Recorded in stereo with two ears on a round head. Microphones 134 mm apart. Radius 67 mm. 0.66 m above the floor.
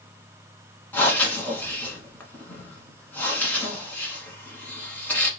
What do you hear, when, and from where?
0.9 s breathing: 10° left (ahead or behind), 1.2 m